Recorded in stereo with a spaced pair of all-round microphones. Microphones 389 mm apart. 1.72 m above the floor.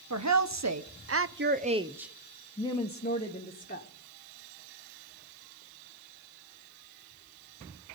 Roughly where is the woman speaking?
Right.